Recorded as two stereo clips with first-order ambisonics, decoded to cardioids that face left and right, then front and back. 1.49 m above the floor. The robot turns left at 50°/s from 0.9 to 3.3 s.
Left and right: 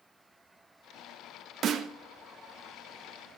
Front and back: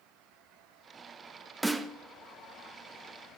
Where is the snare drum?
100° right, 0.5 m; by 1.9 s 115° right, 0.5 m.